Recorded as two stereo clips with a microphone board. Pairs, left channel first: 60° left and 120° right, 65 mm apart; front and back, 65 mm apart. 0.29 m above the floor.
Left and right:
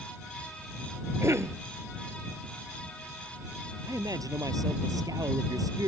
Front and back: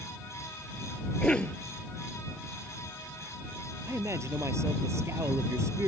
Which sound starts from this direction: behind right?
A man speaking, at 3.9 s.